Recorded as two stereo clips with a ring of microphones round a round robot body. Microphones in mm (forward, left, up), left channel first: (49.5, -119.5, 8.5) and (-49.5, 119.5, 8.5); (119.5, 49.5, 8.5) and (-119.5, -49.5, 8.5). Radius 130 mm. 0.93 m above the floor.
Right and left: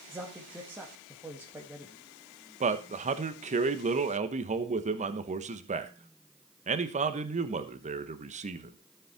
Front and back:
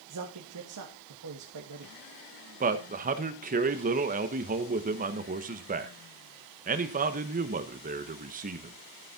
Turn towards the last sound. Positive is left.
turn(degrees=160)